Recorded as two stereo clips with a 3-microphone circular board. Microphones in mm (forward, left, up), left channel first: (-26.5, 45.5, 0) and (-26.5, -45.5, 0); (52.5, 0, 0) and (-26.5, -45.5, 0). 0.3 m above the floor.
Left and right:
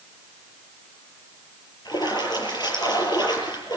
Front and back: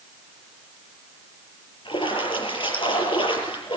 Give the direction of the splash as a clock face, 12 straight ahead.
10 o'clock.